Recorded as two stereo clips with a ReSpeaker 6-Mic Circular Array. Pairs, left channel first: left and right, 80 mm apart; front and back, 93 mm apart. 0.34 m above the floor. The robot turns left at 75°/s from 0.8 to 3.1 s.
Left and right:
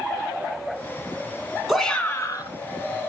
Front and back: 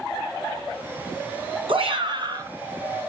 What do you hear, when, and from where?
1.7 s a shout: 175° right, 3 m; by 2.5 s 125° left, 3 m